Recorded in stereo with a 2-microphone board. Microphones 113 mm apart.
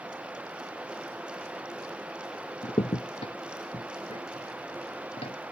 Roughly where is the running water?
Centre.